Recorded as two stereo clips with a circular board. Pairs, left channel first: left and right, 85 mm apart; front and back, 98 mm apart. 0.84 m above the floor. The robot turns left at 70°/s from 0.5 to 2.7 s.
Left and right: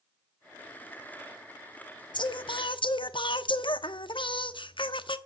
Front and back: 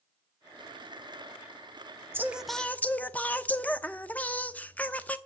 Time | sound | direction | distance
2.1 | singing | 115° left | 0.7 m